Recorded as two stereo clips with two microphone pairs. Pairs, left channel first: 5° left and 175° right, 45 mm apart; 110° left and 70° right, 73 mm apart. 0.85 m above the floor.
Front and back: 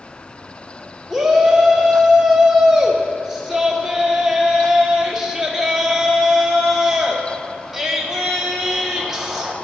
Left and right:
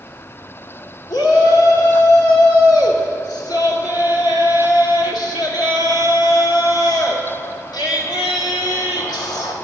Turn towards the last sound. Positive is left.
turn(degrees=100)